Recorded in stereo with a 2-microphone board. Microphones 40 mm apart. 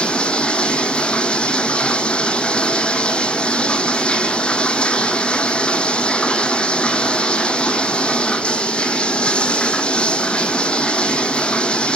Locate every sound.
0.0 s running water: 25° left (ahead or behind), 0.8 m